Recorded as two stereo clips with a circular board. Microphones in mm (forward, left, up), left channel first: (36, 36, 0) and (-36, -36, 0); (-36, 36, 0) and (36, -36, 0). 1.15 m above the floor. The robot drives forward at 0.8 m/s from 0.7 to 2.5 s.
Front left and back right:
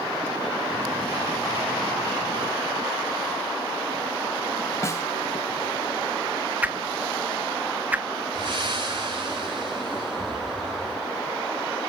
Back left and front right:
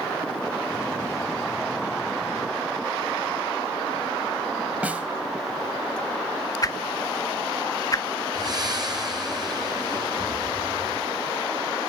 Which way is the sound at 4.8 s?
20° left.